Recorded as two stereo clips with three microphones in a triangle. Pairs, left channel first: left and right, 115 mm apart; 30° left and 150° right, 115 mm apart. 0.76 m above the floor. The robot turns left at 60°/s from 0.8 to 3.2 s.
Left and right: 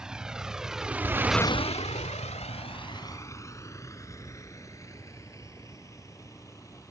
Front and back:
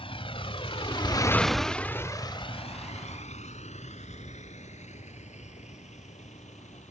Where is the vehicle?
5° right; by 6.9 s 30° left.